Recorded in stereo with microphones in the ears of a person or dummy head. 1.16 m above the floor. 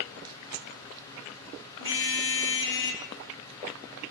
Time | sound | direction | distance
1.8 | a car horn | 65° left (ahead or behind) | 5 m